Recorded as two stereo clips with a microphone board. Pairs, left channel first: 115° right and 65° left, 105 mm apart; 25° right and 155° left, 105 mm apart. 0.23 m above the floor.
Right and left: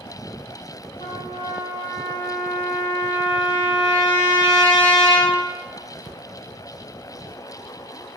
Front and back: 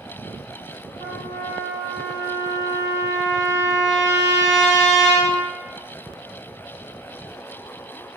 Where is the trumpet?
150° right, 1.2 m.